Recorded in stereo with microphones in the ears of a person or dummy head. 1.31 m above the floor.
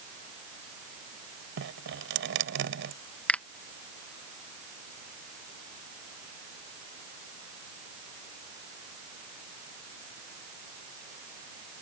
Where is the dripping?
60° right (ahead or behind).